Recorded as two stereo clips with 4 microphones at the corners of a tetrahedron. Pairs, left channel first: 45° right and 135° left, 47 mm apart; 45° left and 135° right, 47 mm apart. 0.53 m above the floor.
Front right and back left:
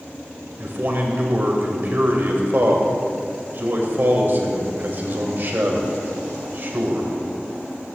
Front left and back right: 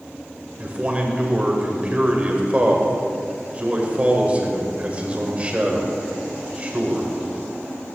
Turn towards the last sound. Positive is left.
turn(degrees=170)